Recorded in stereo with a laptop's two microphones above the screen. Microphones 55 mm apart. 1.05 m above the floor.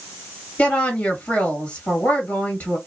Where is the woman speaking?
35° left (ahead or behind), 1.7 m.